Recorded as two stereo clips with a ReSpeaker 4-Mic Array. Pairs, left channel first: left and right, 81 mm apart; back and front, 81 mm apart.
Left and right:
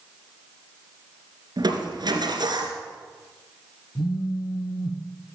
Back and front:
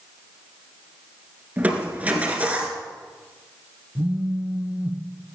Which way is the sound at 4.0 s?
70° left.